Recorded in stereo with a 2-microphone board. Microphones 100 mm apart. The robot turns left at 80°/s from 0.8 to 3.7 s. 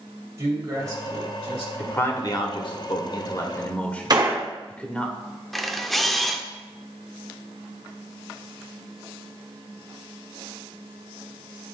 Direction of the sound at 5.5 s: Centre (ahead or behind).